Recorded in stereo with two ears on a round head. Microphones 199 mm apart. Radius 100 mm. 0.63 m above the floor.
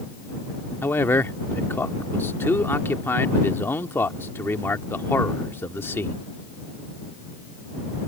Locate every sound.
0.8 s a man speaking: 10° left (ahead or behind)